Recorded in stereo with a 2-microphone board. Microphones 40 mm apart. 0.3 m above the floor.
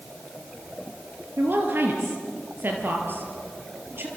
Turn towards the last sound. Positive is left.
turn(degrees=-60)  # may be behind; listen again after turning